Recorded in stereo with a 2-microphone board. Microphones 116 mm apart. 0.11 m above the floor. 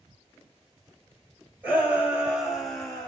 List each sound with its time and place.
1.6 s a shout: 15° right (ahead or behind), 3 m; by 3.1 s 10° left (ahead or behind), 2 m